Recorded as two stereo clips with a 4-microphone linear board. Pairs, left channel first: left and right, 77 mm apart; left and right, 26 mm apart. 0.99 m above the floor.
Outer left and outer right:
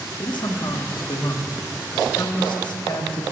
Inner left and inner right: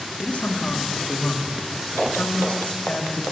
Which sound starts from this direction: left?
A man speaking, at 0.2 s.